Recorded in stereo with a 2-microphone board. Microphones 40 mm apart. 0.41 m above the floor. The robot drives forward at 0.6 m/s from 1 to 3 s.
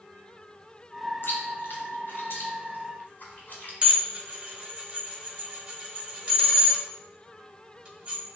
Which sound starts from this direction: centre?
Dishes clattering, at 3.8 s.